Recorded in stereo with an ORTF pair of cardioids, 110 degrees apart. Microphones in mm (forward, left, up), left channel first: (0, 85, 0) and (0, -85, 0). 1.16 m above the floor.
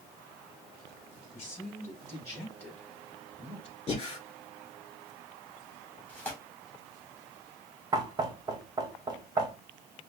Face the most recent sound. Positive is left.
turn(degrees=-25)